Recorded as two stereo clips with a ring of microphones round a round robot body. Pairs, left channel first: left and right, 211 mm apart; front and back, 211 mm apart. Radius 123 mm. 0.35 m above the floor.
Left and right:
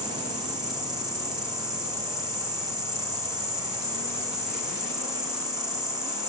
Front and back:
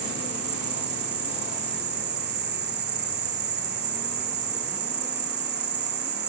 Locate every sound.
0.0 s an insect: 155° right, 2.5 m